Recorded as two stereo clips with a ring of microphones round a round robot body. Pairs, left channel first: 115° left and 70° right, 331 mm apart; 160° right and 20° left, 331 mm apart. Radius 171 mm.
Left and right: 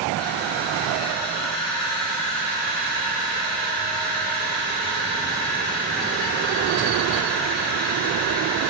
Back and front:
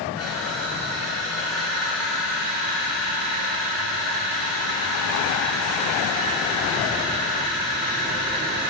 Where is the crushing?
155° left, 4.5 m.